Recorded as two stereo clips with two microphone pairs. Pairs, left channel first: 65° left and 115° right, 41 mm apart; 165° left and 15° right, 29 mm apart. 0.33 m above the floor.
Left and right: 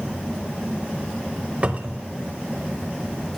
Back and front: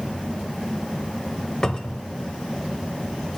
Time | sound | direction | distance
1.6 | a cupboard door | 145° right | 0.6 m